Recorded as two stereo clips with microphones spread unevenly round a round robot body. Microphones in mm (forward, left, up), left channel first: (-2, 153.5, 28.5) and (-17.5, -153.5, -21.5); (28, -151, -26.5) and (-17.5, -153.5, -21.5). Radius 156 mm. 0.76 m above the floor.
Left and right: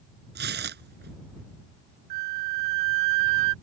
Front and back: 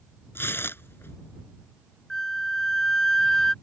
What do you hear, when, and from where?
0.3 s tearing paper: 30° right
2.1 s a flute: 75° right